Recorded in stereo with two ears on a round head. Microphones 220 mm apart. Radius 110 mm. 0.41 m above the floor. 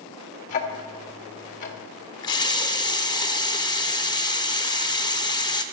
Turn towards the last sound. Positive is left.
turn(degrees=15)  # may be behind; listen again after turning